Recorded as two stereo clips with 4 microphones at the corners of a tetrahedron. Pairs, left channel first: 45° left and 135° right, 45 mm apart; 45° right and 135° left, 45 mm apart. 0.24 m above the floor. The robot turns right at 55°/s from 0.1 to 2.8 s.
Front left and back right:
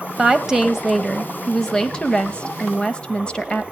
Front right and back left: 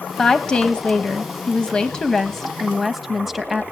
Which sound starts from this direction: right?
A woman speaking, at 0.2 s.